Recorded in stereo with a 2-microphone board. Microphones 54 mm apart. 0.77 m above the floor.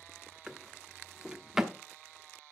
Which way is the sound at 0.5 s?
10° right (ahead or behind).